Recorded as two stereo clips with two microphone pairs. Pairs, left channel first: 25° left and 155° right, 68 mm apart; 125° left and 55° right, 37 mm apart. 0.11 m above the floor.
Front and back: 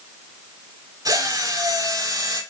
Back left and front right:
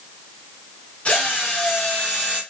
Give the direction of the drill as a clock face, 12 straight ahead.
6 o'clock.